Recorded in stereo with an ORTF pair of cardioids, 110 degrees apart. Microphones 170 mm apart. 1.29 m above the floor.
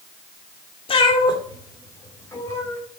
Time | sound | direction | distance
0.9 | a cat meowing | 35° left | 2 m